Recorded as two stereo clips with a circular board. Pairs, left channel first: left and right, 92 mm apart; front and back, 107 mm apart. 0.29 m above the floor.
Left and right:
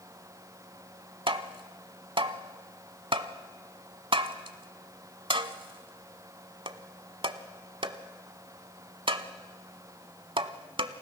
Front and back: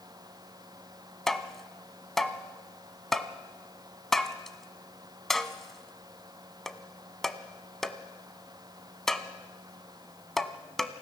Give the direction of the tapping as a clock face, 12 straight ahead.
3 o'clock.